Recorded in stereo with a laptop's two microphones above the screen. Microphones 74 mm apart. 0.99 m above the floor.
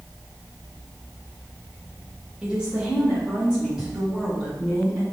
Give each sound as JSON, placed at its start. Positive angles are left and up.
{"t": 2.4, "sound": "a woman speaking", "side_deg": -15, "distance_m": 0.9}